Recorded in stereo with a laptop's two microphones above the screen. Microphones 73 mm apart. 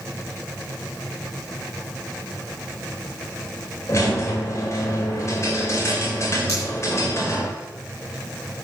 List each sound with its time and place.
3.9 s a squeak: 45° left (ahead or behind), 2 m
6.5 s a pop: 40° left (ahead or behind), 5 m